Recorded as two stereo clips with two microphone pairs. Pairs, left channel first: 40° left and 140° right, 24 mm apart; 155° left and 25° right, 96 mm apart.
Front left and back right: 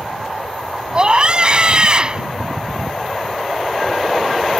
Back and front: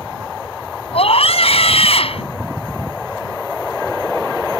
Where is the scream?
160° left.